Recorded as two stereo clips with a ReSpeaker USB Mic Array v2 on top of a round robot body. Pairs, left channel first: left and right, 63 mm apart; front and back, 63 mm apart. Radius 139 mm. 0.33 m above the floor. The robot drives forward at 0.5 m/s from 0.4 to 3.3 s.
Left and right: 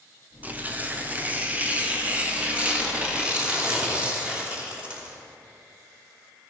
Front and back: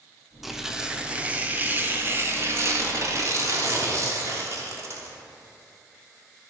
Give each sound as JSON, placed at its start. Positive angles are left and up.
{"t": 0.4, "sound": "tearing paper", "azimuth_deg": -95, "distance_m": 1.4}